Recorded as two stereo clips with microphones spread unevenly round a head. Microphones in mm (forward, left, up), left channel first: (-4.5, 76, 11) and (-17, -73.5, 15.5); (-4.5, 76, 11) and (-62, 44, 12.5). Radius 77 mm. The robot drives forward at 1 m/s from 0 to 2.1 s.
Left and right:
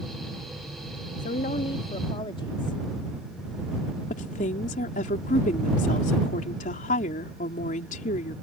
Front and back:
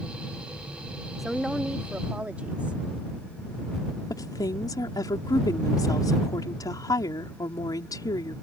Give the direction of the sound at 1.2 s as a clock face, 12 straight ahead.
8 o'clock.